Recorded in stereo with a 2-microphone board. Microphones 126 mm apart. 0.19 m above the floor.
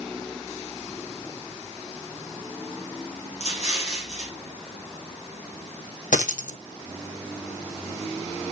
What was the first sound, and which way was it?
An explosion, 60° left (ahead or behind).